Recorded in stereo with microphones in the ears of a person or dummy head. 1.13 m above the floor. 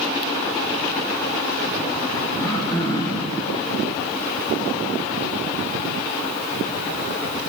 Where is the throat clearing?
25° left (ahead or behind), 5 m.